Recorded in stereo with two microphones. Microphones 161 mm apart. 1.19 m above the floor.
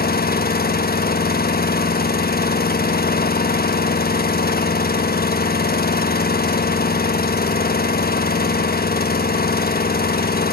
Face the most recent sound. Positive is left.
turn(degrees=75)  # may be behind; listen again after turning